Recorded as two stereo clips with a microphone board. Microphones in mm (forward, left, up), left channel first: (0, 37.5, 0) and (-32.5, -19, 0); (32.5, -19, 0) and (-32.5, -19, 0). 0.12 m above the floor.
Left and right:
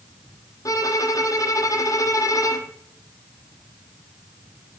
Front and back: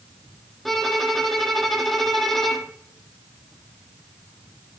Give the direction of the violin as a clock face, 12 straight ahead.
9 o'clock.